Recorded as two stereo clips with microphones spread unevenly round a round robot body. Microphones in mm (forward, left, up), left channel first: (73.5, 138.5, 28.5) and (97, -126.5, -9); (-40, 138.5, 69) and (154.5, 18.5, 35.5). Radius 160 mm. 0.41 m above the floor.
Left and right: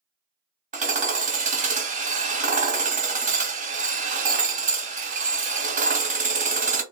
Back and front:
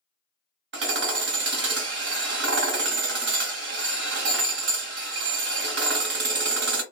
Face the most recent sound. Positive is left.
turn(degrees=-30)